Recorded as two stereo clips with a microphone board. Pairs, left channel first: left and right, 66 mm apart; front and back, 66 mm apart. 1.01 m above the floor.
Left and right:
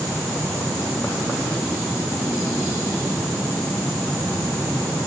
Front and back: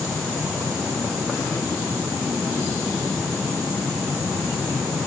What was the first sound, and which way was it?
Only background noise.